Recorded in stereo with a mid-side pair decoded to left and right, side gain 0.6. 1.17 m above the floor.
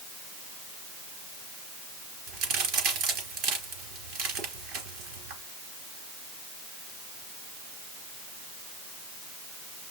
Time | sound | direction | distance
2.3 | a crack | 65° right | 4 m